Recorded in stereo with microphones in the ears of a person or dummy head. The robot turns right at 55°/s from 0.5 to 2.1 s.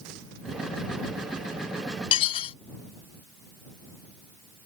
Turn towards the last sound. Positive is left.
turn(degrees=35)  # may be behind; listen again after turning